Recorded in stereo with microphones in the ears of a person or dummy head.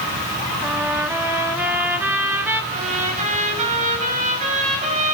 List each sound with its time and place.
0.6 s a trumpet: 10° right (ahead or behind), 3 m
2.7 s a trumpet: 40° right (ahead or behind), 6.5 m